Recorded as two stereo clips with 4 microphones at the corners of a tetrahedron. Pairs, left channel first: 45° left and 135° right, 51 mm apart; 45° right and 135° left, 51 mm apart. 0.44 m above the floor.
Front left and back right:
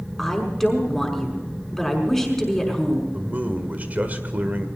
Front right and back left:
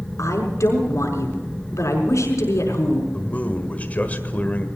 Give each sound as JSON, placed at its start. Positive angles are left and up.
{"t": 0.2, "sound": "a woman speaking", "azimuth_deg": -40, "distance_m": 5.5}
{"t": 3.1, "sound": "a man speaking", "azimuth_deg": -90, "distance_m": 1.7}